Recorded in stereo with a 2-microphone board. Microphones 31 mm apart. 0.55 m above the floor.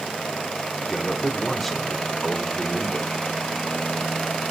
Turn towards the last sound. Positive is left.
turn(degrees=5)  # may be behind; listen again after turning